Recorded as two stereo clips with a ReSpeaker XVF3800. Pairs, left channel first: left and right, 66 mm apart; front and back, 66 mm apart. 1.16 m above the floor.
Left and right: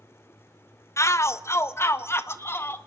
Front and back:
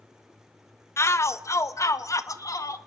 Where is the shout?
45° left, 1.1 m; by 2.8 s 35° left, 2 m.